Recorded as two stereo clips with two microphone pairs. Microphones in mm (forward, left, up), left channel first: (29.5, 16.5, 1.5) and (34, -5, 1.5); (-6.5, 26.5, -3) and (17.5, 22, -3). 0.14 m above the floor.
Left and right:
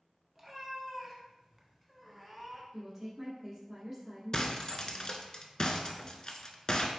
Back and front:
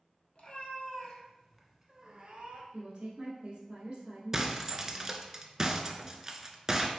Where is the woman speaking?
5° right, 1.3 m.